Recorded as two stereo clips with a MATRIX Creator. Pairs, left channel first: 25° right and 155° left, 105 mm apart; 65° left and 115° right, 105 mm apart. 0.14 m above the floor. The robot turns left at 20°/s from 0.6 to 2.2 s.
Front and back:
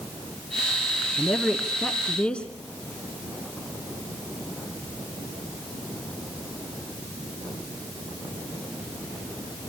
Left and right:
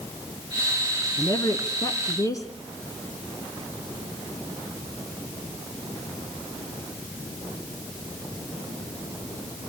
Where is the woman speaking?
70° left, 1.7 m; by 2.5 s 50° left, 1.7 m.